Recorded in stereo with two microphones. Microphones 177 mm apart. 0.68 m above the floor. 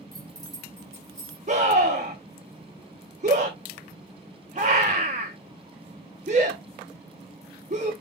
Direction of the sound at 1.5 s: 45° right (ahead or behind).